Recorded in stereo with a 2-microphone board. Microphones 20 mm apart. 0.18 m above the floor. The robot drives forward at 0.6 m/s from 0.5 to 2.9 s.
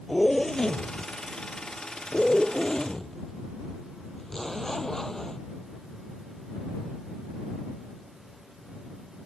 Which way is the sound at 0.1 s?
25° left (ahead or behind).